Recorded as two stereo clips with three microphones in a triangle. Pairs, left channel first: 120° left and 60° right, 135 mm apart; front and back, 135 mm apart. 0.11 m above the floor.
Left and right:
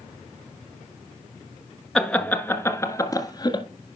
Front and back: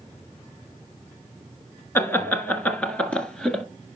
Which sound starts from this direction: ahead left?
Laughter, at 1.9 s.